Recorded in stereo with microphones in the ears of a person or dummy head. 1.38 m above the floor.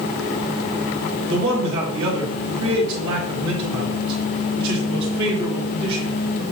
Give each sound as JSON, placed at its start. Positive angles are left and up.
{"t": 1.3, "sound": "a man speaking", "side_deg": -25, "distance_m": 1.1}